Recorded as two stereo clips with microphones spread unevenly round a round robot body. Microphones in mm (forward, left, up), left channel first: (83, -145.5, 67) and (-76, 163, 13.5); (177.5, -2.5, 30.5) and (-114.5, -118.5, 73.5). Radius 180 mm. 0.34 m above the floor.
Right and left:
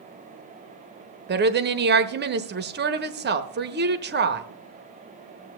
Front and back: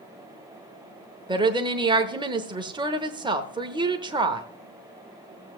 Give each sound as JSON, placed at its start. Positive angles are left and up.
{"t": 1.3, "sound": "a woman speaking", "azimuth_deg": 120, "distance_m": 1.0}